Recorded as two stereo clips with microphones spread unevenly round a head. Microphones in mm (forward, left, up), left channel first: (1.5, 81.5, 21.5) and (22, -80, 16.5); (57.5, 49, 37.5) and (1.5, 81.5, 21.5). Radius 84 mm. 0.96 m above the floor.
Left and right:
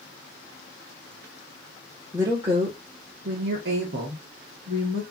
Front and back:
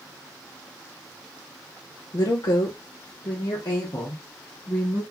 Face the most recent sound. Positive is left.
turn(degrees=-105)